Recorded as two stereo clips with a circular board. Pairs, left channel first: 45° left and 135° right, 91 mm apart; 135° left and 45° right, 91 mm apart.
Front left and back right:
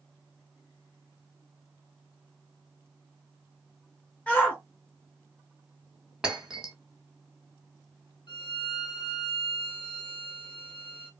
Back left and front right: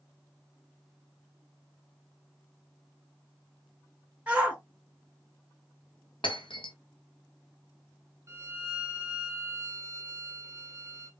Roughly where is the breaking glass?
Behind left.